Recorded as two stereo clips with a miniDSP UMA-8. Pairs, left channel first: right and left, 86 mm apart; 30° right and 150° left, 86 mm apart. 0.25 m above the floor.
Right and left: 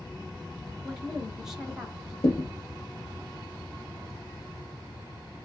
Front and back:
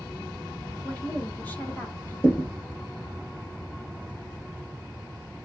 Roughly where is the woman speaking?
Ahead.